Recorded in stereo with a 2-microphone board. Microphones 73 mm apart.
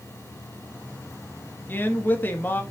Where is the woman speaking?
25° left (ahead or behind), 1.0 m.